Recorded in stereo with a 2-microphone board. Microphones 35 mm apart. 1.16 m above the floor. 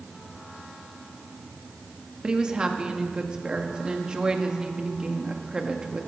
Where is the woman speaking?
25° right (ahead or behind), 1.4 m.